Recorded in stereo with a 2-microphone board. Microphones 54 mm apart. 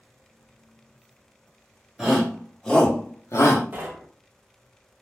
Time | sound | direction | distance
2.0 | a shout | 10° right (ahead or behind) | 1.2 m
3.7 | knocking | 35° right (ahead or behind) | 0.5 m